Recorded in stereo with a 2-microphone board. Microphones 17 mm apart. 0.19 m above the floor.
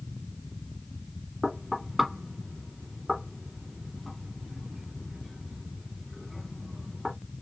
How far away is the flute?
No flute in this recording.